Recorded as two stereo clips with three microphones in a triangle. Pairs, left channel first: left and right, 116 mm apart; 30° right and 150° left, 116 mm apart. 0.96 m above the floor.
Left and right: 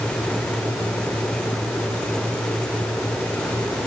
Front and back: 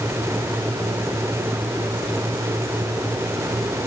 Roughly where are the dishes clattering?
I don't hear dishes clattering.